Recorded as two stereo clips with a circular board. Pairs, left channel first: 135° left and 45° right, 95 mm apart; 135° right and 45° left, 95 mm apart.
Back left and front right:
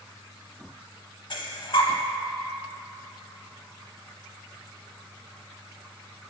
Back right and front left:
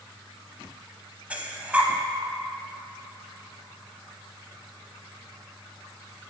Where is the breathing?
120° left, 0.6 m.